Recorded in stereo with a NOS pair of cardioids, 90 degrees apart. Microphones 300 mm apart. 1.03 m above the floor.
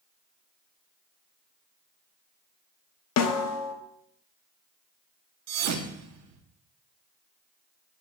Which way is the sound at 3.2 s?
70° left.